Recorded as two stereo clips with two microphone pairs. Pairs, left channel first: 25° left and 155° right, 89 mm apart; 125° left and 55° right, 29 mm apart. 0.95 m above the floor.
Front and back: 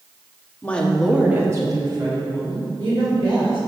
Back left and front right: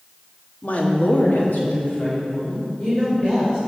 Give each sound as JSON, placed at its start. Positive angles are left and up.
{"t": 0.6, "sound": "a woman speaking", "azimuth_deg": 95, "distance_m": 1.4}